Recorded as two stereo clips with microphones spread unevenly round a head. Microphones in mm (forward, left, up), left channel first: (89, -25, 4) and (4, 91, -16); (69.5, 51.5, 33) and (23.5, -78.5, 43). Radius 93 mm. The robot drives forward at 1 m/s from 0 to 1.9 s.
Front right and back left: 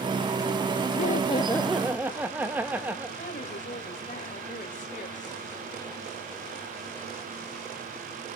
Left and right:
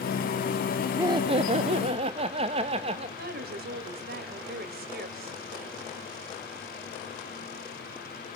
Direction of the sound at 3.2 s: 110° right.